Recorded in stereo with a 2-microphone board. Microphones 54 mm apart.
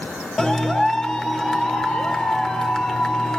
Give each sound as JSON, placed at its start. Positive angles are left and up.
{"t": 0.4, "sound": "a clap", "side_deg": 10, "distance_m": 1.5}